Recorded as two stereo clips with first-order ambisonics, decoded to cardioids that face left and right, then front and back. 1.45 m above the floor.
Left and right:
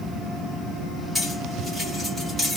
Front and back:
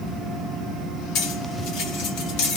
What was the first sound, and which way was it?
Cutlery clinking, straight ahead.